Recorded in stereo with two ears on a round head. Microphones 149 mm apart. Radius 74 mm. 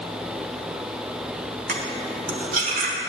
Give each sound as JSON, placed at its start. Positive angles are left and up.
{"t": 1.7, "sound": "cutlery clinking", "side_deg": -55, "distance_m": 1.3}